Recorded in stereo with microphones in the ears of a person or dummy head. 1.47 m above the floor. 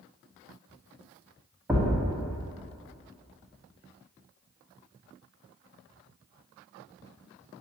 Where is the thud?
10° right (ahead or behind), 1.1 m.